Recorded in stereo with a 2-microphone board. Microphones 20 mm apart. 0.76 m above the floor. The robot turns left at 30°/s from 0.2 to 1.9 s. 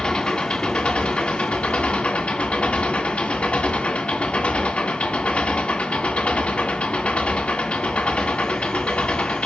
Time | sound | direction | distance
0.0 | an engine running | 130° left | 2 m